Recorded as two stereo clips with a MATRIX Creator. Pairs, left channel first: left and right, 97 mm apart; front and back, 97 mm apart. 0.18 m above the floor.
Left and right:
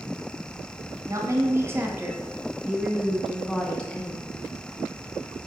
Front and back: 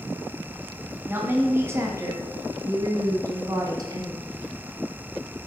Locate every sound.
1.1 s a woman speaking: 120° right, 2.0 m; by 4.2 s 155° left, 2.0 m